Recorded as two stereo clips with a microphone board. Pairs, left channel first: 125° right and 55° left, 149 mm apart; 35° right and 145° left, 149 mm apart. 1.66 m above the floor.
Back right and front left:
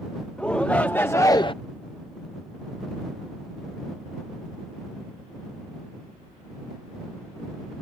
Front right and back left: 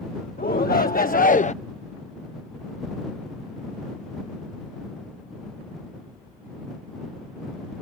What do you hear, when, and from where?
0.4 s a shout: 40° right; by 1.5 s 75° right